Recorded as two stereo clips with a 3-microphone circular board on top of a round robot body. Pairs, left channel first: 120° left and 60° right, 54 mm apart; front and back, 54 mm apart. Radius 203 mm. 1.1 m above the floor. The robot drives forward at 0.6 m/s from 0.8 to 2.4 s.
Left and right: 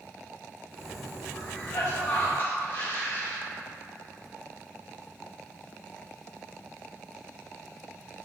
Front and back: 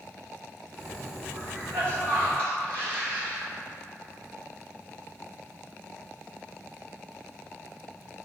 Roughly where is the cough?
Behind left.